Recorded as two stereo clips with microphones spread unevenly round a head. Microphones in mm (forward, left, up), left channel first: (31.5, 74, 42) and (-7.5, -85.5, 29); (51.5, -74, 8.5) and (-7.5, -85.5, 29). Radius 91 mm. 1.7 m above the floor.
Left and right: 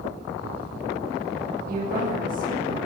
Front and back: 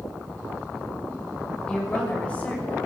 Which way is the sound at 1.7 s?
65° right.